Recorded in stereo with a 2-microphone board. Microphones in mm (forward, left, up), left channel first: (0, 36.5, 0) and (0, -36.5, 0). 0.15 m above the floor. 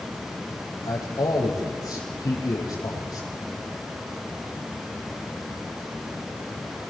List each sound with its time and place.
0.8 s a man speaking: 60° left (ahead or behind), 6 m